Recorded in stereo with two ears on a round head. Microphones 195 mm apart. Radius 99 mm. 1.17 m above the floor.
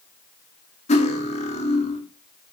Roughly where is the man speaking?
No man speaking in this recording.